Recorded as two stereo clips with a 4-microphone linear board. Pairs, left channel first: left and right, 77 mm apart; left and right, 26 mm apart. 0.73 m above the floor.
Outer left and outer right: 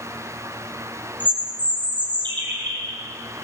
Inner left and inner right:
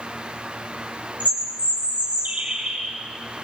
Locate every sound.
1.2 s a bird: 80° right, 6 m